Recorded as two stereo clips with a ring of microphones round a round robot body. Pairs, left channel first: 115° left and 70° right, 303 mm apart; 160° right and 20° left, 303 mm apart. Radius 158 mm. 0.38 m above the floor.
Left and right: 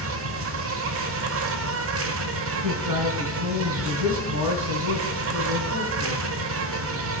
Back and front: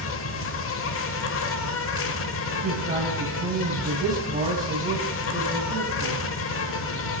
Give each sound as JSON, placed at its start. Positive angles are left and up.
{"t": 0.0, "sound": "an insect", "azimuth_deg": -110, "distance_m": 0.8}
{"t": 2.6, "sound": "a man speaking", "azimuth_deg": -40, "distance_m": 2.5}